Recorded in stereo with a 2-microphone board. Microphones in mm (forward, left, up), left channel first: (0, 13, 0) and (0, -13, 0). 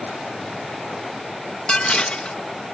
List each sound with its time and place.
1.7 s dishes clattering: 40° left (ahead or behind)